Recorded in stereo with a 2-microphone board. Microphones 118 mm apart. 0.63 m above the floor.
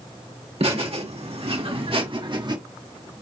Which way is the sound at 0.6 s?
60° right (ahead or behind).